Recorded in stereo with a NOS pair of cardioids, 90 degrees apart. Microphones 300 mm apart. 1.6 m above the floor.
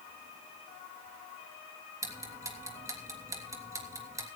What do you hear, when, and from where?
2.0 s ticking: 10° right, 3 m